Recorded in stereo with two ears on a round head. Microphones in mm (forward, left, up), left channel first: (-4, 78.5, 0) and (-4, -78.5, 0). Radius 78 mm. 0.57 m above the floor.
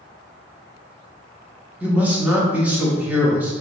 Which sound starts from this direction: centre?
A man speaking, at 1.8 s.